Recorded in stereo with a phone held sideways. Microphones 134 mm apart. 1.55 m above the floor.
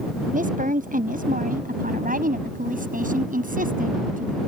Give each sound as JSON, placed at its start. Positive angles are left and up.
{"t": 0.3, "sound": "a woman speaking", "side_deg": -75}